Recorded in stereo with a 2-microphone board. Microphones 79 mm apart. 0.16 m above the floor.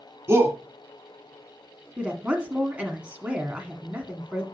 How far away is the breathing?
I don't hear breathing.